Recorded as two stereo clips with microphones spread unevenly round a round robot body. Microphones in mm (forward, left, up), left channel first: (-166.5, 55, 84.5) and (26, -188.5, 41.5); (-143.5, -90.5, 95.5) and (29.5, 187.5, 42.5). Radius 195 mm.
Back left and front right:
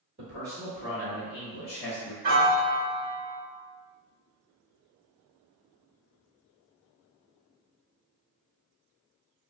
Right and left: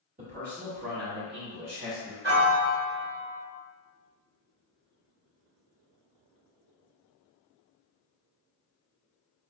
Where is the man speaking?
5° left, 1.3 m; by 2.1 s 95° left, 1.3 m.